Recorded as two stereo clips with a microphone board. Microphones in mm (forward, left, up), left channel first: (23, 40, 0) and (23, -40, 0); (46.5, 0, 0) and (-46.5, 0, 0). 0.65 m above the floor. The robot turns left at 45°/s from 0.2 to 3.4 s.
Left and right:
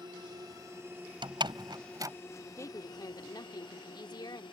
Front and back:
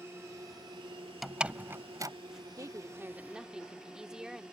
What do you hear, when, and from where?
0.0 s a drone: 120° right; by 4.5 s 100° left
1.2 s a door slam: 95° right; by 2.1 s 135° right
2.6 s a woman speaking: 135° left; by 4.4 s 100° left